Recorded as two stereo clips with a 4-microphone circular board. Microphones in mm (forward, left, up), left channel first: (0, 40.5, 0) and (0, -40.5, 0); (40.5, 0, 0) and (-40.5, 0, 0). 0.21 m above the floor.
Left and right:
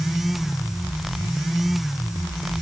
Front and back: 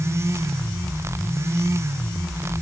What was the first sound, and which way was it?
Only background noise.